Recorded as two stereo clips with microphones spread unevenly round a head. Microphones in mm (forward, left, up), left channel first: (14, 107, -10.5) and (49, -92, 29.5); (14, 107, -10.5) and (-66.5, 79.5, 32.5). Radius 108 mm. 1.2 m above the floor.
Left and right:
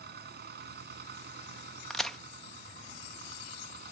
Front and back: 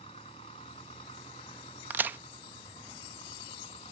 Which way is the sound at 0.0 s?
40° right.